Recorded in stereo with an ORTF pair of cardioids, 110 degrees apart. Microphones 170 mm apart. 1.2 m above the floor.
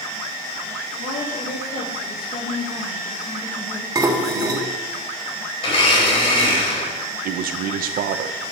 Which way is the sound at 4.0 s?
20° right.